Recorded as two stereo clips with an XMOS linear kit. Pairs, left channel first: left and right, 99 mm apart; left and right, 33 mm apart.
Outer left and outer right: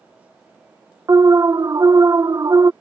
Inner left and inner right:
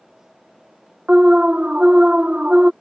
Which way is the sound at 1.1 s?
40° right (ahead or behind).